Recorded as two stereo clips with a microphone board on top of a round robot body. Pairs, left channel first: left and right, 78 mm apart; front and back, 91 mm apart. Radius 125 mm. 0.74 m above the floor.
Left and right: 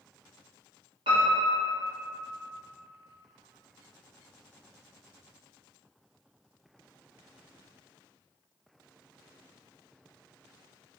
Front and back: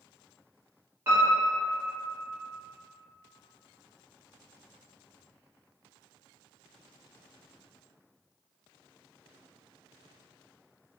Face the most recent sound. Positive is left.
turn(degrees=-115)